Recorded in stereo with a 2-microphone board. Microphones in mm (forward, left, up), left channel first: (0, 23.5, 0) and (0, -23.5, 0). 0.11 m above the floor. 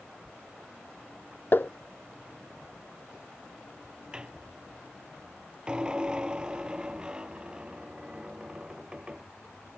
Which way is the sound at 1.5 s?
45° left (ahead or behind).